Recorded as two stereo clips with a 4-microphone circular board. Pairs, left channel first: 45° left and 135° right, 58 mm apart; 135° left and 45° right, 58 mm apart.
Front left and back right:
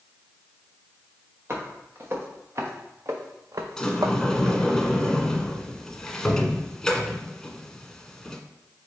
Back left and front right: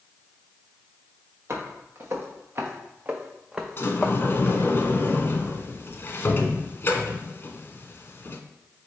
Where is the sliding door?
120° left, 0.5 m.